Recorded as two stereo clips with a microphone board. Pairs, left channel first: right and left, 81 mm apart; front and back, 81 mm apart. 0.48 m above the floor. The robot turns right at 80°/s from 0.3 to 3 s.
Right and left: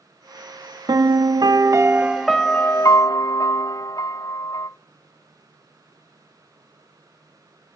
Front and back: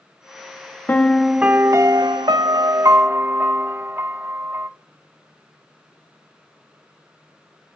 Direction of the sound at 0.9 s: 65° left.